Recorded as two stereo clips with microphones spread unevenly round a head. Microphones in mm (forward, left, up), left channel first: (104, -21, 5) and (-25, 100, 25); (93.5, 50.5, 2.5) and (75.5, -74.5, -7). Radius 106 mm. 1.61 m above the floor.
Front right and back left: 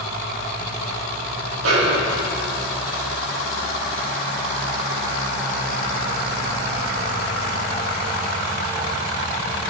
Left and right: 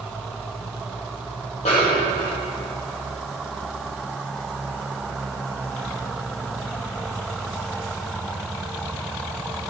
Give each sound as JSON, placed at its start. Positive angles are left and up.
{"t": 1.6, "sound": "a snare drum", "azimuth_deg": 145, "distance_m": 1.2}